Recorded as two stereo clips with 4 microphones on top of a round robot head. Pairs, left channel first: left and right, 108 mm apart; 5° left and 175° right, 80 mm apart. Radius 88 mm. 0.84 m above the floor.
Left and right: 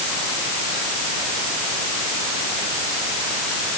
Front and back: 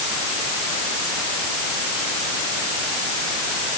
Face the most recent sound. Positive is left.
No sound to turn to.